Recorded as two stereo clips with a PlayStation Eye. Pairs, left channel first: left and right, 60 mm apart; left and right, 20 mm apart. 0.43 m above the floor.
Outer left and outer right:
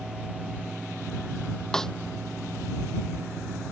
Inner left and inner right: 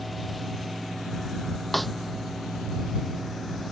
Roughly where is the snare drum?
Centre.